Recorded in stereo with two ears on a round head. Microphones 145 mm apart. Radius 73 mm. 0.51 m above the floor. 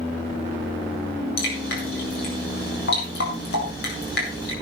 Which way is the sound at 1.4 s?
60° left (ahead or behind).